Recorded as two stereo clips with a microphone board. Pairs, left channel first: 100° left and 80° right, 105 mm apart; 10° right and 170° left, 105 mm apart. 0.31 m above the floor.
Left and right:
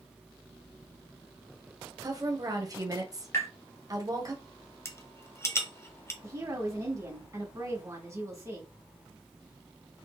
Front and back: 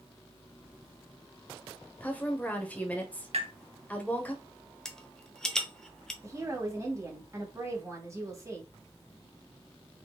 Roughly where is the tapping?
Behind.